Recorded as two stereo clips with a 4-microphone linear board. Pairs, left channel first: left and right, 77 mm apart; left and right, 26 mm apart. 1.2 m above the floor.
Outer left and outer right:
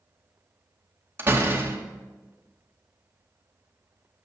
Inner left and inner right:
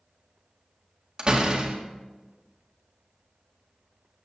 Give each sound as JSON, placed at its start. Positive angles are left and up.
{"t": 1.2, "sound": "a door slam", "side_deg": -30, "distance_m": 1.9}